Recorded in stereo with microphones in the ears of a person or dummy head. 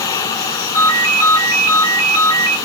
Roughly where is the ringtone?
Left.